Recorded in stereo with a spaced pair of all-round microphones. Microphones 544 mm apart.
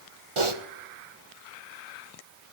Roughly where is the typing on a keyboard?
Right.